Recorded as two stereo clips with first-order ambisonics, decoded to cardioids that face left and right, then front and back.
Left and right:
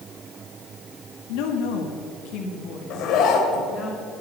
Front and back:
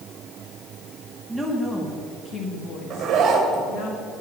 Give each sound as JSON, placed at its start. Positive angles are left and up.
{"t": 1.3, "sound": "a woman speaking", "azimuth_deg": 95, "distance_m": 1.7}
{"t": 2.9, "sound": "a zipper", "azimuth_deg": 125, "distance_m": 1.9}